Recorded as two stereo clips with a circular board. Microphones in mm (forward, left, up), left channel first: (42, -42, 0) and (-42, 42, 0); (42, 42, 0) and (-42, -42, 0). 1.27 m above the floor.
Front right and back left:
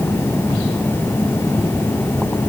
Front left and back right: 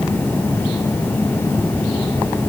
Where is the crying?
I don't hear crying.